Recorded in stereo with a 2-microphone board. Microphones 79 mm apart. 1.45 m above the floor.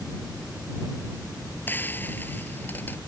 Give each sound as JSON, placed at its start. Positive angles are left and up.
{"t": 1.7, "sound": "frying", "side_deg": 25}